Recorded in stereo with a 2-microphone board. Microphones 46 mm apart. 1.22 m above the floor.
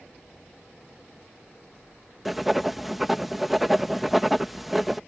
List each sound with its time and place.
2.2 s writing: centre (ahead or behind)